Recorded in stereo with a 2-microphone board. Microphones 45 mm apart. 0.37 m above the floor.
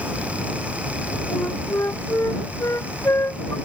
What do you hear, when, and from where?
1.3 s a flute: 85° left